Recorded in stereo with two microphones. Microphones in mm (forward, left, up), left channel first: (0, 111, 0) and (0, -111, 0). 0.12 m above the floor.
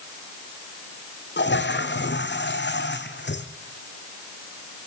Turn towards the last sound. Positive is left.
turn(degrees=55)  # may be behind; listen again after turning